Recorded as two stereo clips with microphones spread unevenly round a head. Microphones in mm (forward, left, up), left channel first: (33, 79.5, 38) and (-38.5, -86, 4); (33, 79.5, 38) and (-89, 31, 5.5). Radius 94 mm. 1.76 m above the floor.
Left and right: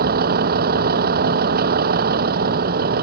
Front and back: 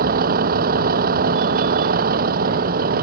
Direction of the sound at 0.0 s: 155° right.